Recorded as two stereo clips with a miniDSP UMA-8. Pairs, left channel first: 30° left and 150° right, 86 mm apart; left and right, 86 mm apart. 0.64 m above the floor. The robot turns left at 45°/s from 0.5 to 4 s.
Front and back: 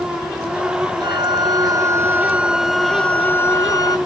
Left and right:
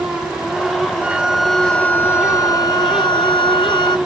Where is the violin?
160° right; by 4.0 s 65° left.